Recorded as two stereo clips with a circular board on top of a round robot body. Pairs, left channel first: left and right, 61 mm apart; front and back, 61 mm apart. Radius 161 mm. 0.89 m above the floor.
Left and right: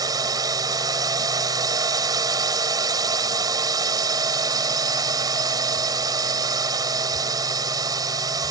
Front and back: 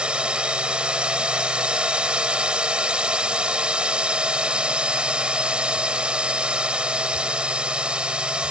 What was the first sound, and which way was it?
A drone, 105° right.